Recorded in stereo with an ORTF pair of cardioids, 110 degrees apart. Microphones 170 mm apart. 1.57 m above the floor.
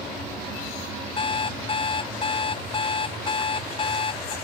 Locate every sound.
1.2 s an alarm clock: 35° left